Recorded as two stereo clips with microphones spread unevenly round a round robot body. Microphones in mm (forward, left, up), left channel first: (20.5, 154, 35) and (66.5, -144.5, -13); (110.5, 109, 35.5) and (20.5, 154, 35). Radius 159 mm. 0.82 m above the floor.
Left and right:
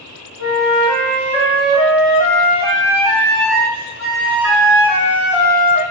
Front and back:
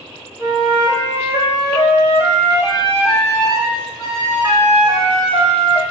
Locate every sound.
0.4 s a flute: 105° right, 1.7 m